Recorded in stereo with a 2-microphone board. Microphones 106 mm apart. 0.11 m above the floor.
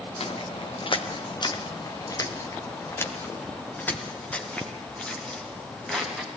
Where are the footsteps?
70° left (ahead or behind), 3 m; by 6.4 s 5° left (ahead or behind), 8 m.